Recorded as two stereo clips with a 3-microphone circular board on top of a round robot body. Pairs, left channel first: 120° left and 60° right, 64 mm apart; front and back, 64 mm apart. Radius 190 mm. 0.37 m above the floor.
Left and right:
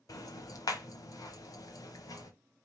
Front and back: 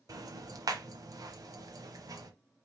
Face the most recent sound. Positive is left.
turn(degrees=150)